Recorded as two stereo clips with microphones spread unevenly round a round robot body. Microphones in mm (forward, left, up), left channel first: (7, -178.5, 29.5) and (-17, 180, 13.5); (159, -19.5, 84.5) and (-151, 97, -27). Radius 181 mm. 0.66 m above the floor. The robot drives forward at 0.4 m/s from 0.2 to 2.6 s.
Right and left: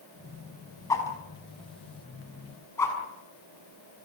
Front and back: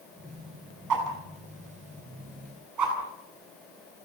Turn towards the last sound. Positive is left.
turn(degrees=-170)